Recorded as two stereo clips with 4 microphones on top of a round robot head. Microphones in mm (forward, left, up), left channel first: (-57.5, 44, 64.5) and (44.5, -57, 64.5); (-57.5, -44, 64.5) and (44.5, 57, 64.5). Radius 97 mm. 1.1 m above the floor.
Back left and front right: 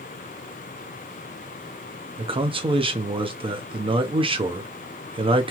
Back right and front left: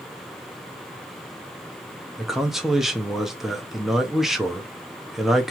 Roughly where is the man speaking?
Ahead right.